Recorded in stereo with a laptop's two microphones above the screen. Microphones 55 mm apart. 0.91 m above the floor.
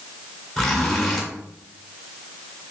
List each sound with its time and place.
0.6 s a zipper: centre (ahead or behind), 1.7 m